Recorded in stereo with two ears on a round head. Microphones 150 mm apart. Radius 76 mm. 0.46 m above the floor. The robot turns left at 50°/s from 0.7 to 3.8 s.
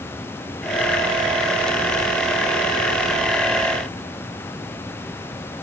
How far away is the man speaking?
I don't hear a man speaking.